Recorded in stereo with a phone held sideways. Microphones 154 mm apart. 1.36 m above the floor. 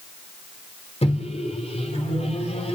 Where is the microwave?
40° left (ahead or behind), 3.5 m.